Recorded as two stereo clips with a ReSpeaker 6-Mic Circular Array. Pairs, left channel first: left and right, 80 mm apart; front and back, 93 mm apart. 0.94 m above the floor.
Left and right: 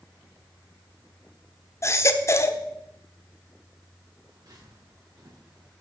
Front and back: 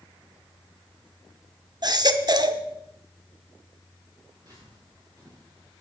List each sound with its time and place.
1.8 s a baby crying: 140° left, 1.0 m
4.3 s footsteps: 135° right, 8 m; by 5.7 s 130° right, 9 m